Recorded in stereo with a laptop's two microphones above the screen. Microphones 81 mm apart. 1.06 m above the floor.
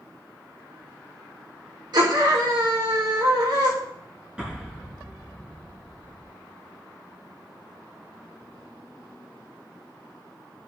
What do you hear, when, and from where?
1.9 s a scream: 65° right (ahead or behind), 4.5 m
4.4 s an explosion: 10° right (ahead or behind), 4 m